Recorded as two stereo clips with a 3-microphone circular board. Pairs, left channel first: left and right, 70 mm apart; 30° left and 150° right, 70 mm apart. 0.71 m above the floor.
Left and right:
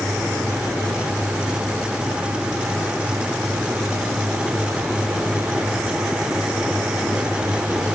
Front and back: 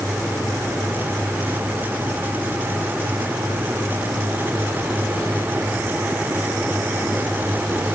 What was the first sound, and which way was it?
Only background noise.